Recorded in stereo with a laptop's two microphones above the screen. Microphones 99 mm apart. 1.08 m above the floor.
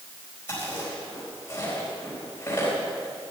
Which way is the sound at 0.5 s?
25° left (ahead or behind).